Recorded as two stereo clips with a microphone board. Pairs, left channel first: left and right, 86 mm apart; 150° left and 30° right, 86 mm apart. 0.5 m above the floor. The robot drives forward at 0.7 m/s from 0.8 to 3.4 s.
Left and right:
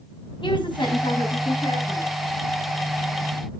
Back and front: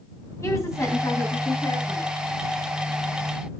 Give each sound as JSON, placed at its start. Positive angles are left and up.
{"t": 0.4, "sound": "a woman speaking", "azimuth_deg": 95, "distance_m": 4.5}